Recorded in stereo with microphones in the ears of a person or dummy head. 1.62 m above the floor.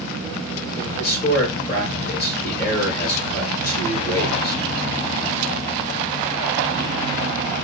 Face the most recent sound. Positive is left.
turn(degrees=55)  # may be behind; listen again after turning